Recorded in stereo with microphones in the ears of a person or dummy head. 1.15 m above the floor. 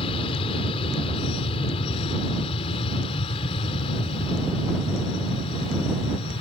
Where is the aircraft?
35° left (ahead or behind).